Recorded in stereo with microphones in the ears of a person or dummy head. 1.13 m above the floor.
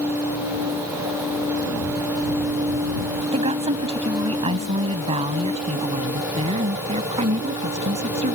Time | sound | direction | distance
3.3 | a woman speaking | 30° right (ahead or behind) | ?